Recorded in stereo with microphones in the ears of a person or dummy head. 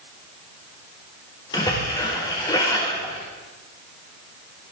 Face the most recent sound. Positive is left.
turn(degrees=20)  # may be behind; listen again after turning